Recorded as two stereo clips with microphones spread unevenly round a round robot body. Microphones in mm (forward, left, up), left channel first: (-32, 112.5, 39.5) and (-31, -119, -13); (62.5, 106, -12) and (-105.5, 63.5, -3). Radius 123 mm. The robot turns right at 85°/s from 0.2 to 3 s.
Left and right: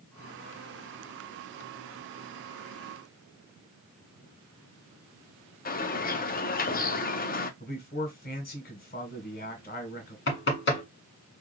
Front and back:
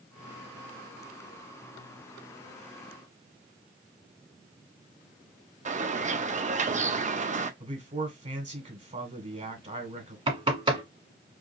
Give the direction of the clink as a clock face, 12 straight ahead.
I don't hear a clink.